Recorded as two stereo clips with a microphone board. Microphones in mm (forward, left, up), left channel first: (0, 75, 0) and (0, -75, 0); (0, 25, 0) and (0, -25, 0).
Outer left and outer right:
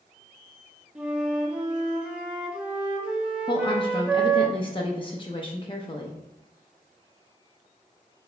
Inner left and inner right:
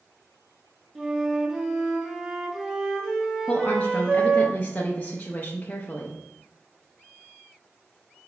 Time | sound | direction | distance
0.9 | a flute | 5° right (ahead or behind) | 0.7 m
3.5 | a woman speaking | 35° left (ahead or behind) | 0.5 m